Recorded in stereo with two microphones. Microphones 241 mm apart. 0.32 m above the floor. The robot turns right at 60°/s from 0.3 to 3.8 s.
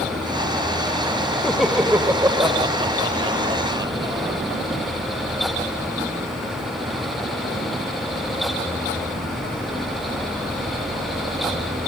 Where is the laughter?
5° left (ahead or behind), 0.9 m; by 4.3 s 15° right (ahead or behind), 0.9 m.